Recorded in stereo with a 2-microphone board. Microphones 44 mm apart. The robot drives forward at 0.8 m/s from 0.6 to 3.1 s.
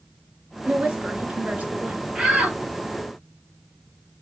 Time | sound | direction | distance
0.7 | a woman speaking | 30° right (ahead or behind) | 2.5 m
2.1 | a shout | 10° right (ahead or behind) | 3.5 m